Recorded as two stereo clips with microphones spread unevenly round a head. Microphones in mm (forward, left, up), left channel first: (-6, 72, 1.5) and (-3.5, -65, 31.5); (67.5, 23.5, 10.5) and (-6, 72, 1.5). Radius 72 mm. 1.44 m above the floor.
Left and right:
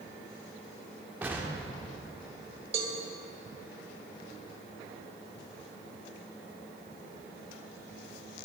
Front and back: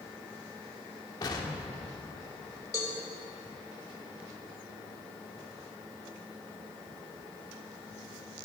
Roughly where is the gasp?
No gasp in this recording.